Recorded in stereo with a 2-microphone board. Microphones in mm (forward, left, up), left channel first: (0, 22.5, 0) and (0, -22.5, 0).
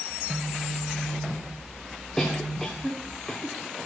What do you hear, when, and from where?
0.1 s a phone buzzing: 30° left (ahead or behind), 2.5 m
2.2 s a cough: 20° left (ahead or behind), 1.9 m